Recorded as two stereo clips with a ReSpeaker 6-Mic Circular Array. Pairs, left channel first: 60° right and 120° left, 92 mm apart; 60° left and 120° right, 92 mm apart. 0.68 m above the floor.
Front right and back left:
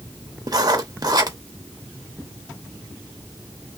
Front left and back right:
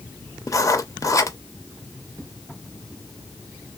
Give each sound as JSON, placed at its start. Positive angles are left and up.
{"t": 0.5, "sound": "writing", "azimuth_deg": 95, "distance_m": 0.6}